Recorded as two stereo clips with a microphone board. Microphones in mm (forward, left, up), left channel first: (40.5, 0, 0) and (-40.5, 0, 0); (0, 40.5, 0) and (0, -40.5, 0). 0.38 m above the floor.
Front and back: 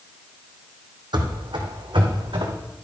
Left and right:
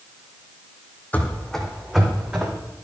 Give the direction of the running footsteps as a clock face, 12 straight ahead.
7 o'clock.